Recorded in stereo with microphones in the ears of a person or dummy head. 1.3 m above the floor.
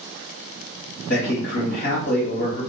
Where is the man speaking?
40° left (ahead or behind), 1.6 m.